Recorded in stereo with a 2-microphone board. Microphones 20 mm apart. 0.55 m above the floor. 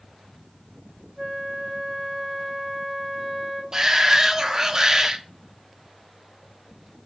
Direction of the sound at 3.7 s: 25° right (ahead or behind).